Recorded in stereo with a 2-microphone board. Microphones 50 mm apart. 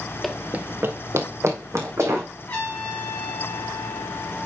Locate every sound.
0.2 s running footsteps: 5° left (ahead or behind), 0.7 m; by 2.3 s 80° right, 3 m
2.5 s a trumpet: 25° left (ahead or behind), 3.5 m